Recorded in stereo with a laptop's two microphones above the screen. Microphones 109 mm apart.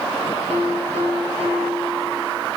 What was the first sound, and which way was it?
A piano, 75° right (ahead or behind).